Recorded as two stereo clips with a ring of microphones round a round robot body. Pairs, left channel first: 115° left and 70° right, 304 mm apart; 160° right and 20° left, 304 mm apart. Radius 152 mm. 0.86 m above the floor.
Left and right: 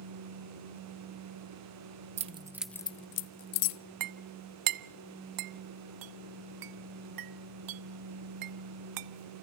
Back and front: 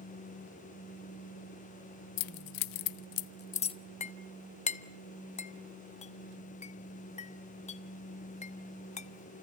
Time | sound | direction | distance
2.2 | keys jangling | 135° right | 0.9 m
4.0 | a clink | 90° right | 0.9 m